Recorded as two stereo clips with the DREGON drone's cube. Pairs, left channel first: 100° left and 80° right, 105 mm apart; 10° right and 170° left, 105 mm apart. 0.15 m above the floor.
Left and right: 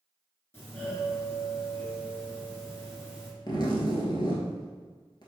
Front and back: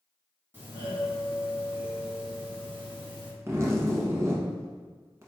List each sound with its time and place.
0.5 s a doorbell: 130° left, 1.7 m
3.5 s a zipper: 120° left, 0.8 m